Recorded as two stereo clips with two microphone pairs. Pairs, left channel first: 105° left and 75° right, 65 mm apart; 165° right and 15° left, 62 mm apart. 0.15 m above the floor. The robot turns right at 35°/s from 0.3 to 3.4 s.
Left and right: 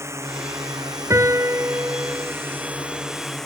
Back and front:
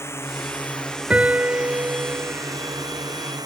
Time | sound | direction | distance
0.0 | a drone | 120° right | ?
1.1 | a piano | 55° right | ?